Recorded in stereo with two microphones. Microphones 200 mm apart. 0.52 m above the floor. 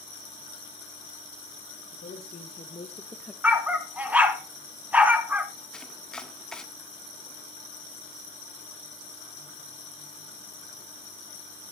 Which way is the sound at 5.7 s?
5° left (ahead or behind).